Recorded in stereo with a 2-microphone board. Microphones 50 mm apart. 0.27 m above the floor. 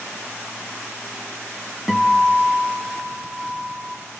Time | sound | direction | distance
1.9 | a guitar | 5° right (ahead or behind) | 2.5 m